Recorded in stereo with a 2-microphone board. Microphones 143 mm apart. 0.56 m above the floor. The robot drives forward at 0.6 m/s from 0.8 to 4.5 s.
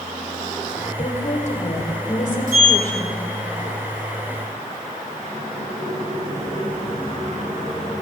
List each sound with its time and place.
1.0 s a woman speaking: 55° left (ahead or behind), 2.5 m; by 3.3 s 60° left (ahead or behind), 2.5 m
2.5 s a sliding door: 75° right (ahead or behind), 4.5 m